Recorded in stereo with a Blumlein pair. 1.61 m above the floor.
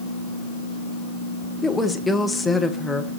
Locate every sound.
1.6 s a woman speaking: 5° left, 1.2 m